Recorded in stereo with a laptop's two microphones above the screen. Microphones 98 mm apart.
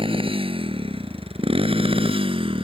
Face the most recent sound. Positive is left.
turn(degrees=-70)  # may be behind; listen again after turning